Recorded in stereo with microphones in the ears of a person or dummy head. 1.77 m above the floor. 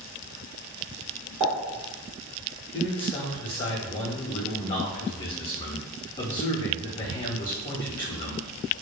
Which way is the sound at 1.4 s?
20° right (ahead or behind).